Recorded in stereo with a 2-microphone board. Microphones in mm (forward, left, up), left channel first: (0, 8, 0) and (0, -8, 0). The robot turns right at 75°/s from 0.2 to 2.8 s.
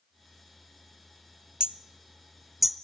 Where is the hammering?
70° right (ahead or behind), 0.7 m; by 2.8 s centre (ahead or behind), 0.7 m.